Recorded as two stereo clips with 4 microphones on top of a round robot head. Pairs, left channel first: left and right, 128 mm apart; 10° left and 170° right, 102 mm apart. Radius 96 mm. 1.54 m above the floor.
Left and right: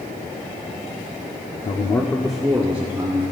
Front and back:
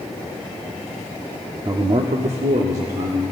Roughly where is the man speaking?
Behind left.